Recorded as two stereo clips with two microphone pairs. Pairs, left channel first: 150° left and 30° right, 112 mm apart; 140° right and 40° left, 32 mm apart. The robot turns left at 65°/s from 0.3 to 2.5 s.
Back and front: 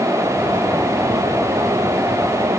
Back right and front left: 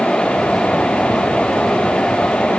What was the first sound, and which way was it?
Only background noise.